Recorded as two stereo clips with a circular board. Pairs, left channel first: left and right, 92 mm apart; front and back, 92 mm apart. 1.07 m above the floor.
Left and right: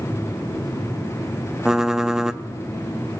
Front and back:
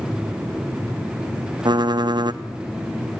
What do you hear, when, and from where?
1.6 s typing on a keyboard: 170° right, 0.6 m